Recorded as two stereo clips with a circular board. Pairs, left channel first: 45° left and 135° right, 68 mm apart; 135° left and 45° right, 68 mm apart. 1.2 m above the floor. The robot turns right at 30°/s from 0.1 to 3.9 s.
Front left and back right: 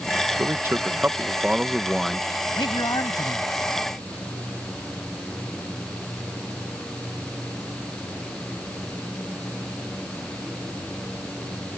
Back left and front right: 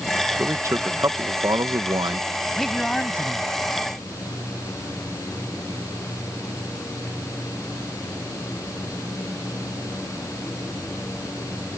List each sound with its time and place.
0.4 s a man speaking: 95° right; by 2.3 s 35° right
2.5 s a man speaking: 45° left; by 4.0 s 85° left